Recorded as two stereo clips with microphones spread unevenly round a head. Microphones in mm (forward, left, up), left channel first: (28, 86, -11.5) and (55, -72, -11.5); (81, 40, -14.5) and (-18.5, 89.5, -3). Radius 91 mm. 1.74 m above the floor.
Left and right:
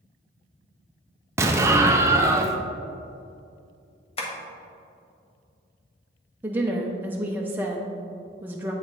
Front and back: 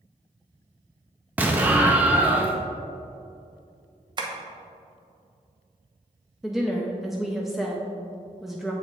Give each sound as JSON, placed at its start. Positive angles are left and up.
{"t": 1.4, "sound": "an explosion", "azimuth_deg": -145, "distance_m": 0.5}
{"t": 4.2, "sound": "tapping", "azimuth_deg": 140, "distance_m": 1.0}
{"t": 6.4, "sound": "a woman speaking", "azimuth_deg": -140, "distance_m": 0.6}